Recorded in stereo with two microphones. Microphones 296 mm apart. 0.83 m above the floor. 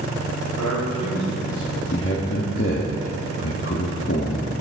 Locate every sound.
0.6 s a man speaking: 70° left (ahead or behind), 4.5 m
1.9 s a man speaking: 45° left (ahead or behind), 1.2 m